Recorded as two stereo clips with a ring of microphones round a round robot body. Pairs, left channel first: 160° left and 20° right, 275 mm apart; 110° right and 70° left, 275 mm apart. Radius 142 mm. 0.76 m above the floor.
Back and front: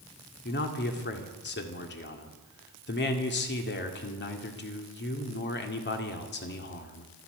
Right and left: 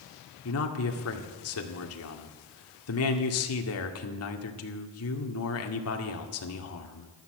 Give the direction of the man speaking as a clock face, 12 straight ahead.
5 o'clock.